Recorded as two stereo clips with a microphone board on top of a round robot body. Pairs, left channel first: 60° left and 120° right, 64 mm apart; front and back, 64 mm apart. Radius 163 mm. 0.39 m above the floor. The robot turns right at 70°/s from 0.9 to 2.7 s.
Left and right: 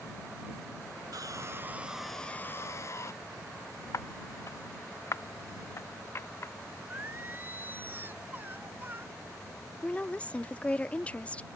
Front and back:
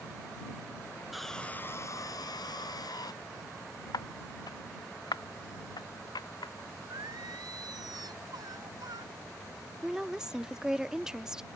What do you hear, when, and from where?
1.1 s sawing: 95° right; by 3.1 s 15° left
3.9 s footsteps: 15° left; by 6.5 s 5° left
6.9 s singing: 175° right
9.8 s a woman speaking: 110° left